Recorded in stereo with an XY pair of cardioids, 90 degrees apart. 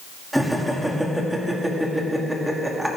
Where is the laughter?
10° right, 2.5 m.